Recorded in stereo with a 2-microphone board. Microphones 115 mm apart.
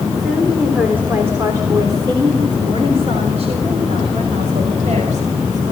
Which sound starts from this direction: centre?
A woman speaking, at 0.2 s.